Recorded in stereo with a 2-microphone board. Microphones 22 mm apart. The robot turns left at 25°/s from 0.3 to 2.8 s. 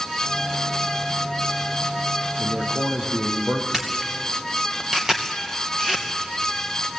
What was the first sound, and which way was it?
A man speaking, 60° right (ahead or behind).